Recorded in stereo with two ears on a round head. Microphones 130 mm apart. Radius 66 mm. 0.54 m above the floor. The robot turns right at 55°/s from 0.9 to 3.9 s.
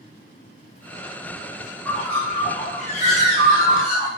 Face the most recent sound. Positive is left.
turn(degrees=110)